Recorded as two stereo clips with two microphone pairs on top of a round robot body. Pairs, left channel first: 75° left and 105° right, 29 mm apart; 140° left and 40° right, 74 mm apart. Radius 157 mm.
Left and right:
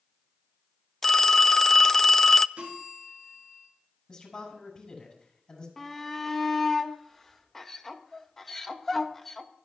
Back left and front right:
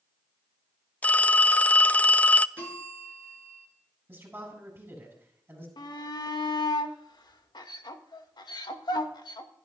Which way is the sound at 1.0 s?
75° left.